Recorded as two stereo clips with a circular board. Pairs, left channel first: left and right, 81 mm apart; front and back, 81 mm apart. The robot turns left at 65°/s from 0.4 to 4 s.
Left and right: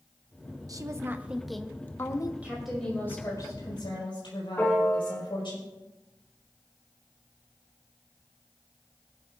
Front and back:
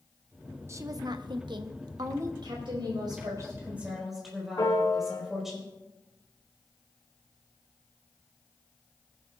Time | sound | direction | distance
0.7 | a woman speaking | 125° right | 0.8 m
2.4 | a woman speaking | 165° right | 4.5 m
4.6 | a piano | 30° left | 2.5 m